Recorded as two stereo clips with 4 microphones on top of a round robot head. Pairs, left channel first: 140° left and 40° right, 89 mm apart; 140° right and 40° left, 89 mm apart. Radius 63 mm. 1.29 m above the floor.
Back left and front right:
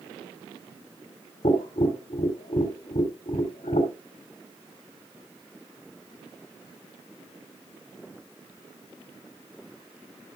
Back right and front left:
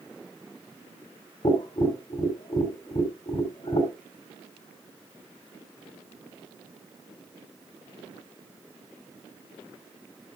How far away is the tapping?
About 3 m.